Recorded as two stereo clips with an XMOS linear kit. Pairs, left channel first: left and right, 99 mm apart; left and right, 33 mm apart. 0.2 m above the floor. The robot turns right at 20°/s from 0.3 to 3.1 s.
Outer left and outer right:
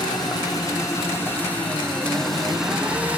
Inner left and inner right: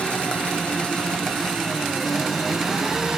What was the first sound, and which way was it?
An engine running, 140° left.